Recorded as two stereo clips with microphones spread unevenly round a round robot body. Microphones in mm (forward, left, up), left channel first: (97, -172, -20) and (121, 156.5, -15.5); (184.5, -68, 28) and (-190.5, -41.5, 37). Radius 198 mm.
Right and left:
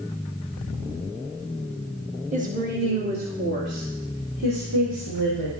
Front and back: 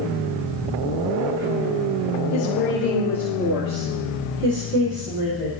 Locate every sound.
2.3 s a woman speaking: 20° left, 1.3 m; by 5.5 s 135° left, 3 m